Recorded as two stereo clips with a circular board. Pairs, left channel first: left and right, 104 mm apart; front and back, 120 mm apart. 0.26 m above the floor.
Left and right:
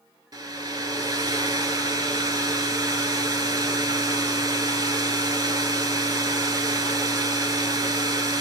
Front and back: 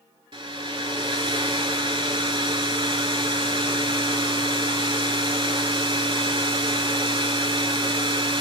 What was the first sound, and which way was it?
A hair dryer, 135° right.